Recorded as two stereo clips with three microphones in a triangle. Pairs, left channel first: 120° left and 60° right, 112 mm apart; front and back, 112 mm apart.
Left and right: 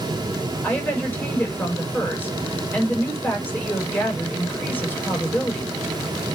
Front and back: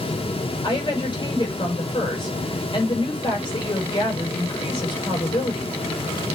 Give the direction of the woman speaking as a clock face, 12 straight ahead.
10 o'clock.